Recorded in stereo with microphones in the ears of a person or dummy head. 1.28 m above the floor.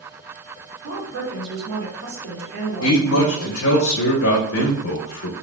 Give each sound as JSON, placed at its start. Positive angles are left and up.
{"t": 0.8, "sound": "a woman speaking", "side_deg": -80, "distance_m": 1.5}
{"t": 2.8, "sound": "a man speaking", "side_deg": 75, "distance_m": 0.7}